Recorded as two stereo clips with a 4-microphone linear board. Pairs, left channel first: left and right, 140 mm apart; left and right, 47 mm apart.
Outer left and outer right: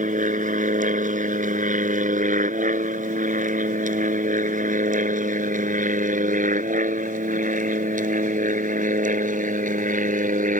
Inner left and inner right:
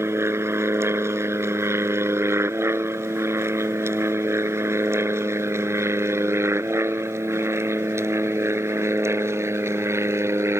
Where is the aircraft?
65° right (ahead or behind); by 10.6 s 70° right (ahead or behind).